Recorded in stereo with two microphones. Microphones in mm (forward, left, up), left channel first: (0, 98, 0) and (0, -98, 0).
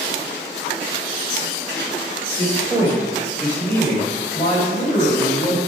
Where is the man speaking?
25° right (ahead or behind), 1.9 m; by 5.6 s 45° left (ahead or behind), 2.5 m.